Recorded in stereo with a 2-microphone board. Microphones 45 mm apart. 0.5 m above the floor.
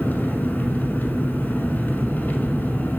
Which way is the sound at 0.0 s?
35° left (ahead or behind).